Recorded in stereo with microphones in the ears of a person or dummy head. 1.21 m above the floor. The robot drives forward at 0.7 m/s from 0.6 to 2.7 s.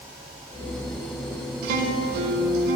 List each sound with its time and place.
1.6 s a guitar: 50° right (ahead or behind), 1.4 m